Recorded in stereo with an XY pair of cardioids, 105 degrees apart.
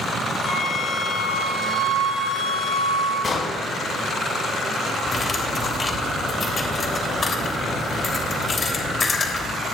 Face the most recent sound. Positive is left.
turn(degrees=35)